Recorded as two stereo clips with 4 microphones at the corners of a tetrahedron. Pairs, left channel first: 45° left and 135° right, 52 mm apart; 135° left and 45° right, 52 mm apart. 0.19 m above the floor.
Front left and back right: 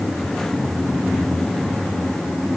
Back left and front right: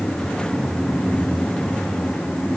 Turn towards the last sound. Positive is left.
No sound to turn to.